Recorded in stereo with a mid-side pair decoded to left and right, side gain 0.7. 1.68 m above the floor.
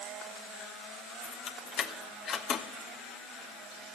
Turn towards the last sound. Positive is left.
turn(degrees=45)